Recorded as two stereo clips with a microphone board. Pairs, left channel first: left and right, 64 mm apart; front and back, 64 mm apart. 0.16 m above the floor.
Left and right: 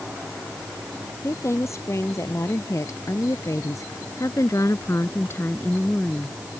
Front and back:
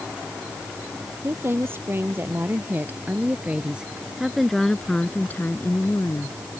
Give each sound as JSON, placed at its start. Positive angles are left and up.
{"t": 1.2, "sound": "a woman speaking", "azimuth_deg": 130}